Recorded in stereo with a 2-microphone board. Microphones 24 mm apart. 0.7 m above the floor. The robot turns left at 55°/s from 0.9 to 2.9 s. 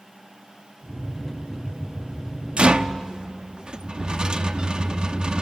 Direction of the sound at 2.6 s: 55° right (ahead or behind).